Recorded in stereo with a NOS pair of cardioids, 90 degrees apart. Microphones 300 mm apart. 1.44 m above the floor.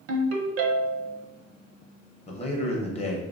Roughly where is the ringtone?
Ahead right.